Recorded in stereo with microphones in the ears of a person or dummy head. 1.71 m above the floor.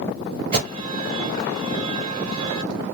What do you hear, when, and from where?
0.5 s an alarm: 40° right (ahead or behind), 1.4 m